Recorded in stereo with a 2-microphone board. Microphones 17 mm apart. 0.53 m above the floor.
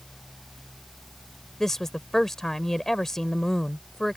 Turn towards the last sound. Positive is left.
turn(degrees=20)  # may be behind; listen again after turning